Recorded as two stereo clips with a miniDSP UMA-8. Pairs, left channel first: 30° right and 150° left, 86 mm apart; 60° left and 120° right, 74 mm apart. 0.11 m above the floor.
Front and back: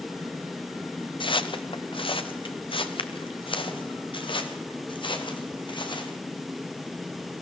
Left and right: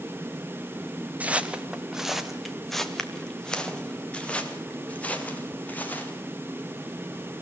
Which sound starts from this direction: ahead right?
Footsteps, at 1.2 s.